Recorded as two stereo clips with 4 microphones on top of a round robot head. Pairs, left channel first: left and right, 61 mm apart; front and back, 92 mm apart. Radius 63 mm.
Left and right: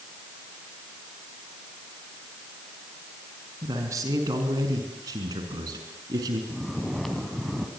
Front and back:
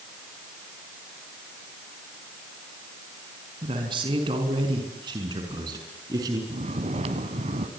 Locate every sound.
3.6 s a man speaking: 135° right, 5 m; by 6.4 s 120° right, 6 m
6.5 s snoring: straight behind, 2.5 m